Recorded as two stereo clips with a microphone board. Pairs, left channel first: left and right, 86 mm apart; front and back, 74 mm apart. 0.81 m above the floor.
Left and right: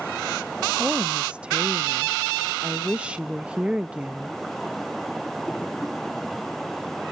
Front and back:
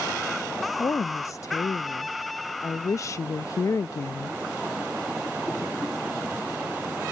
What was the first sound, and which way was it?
A woman speaking, 20° right.